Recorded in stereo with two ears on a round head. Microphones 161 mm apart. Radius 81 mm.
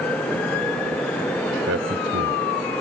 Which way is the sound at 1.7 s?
70° right (ahead or behind).